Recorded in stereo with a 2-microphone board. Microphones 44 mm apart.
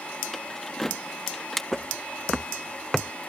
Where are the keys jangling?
5° left (ahead or behind).